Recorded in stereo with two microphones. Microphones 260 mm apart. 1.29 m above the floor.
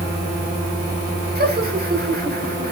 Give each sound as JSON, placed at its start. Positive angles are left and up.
{"t": 1.4, "sound": "laughter", "side_deg": -35, "distance_m": 4.5}